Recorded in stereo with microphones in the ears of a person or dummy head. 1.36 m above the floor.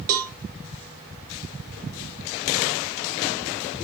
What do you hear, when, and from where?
0.1 s a cowbell: 50° right (ahead or behind), 0.7 m